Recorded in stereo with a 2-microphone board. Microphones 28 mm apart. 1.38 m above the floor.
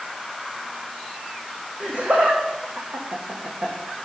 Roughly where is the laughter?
Right.